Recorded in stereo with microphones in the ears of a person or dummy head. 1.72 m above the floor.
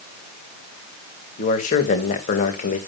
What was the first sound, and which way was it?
A man speaking, 40° left (ahead or behind).